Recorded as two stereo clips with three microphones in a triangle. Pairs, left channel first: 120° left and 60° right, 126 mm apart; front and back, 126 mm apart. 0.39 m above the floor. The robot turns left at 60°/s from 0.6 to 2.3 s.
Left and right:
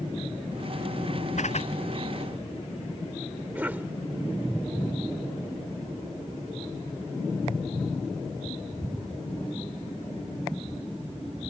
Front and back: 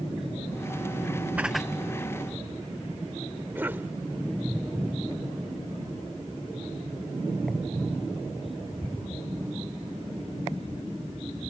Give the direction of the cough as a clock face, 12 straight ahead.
4 o'clock.